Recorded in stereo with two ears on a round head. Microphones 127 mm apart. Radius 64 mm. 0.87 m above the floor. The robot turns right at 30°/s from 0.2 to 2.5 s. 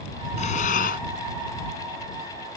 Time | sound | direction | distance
0.4 | breathing | 50° left (ahead or behind) | ?